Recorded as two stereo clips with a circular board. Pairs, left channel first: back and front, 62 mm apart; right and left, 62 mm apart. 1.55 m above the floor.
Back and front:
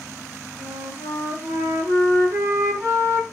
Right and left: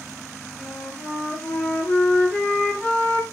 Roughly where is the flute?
Ahead right.